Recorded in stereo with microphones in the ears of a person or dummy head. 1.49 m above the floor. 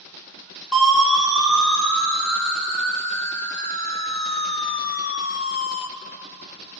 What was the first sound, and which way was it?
A siren, 5° left (ahead or behind).